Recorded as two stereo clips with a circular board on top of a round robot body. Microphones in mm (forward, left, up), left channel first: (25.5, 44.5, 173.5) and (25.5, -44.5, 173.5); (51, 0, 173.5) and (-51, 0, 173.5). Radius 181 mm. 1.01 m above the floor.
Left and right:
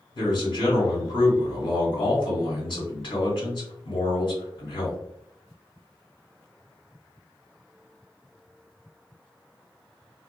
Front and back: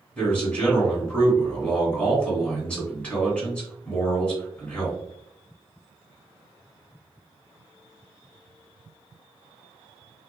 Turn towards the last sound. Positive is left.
turn(degrees=75)